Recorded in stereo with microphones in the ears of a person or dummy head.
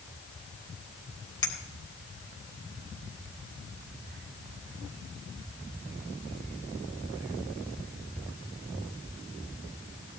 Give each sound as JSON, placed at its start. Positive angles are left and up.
{"t": 1.4, "sound": "a clink", "side_deg": 20, "distance_m": 3.0}